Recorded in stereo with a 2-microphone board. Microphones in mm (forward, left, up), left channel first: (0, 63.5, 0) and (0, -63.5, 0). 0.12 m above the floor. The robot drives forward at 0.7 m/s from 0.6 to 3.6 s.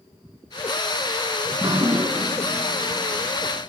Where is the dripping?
25° right (ahead or behind), 0.6 m; by 3.7 s 10° right (ahead or behind), 1.5 m.